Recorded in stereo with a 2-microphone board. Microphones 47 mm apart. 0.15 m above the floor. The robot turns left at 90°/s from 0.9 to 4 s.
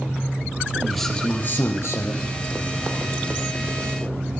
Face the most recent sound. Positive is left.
turn(degrees=-95)